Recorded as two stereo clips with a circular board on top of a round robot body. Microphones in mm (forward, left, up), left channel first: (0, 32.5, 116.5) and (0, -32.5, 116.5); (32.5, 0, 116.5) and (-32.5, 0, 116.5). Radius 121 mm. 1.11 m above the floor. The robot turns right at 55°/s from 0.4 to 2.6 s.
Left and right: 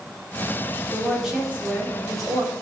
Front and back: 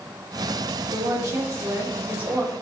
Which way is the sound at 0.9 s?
170° left.